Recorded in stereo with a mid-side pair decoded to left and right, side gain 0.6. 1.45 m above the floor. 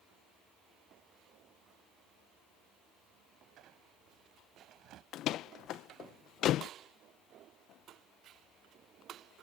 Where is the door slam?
60° left.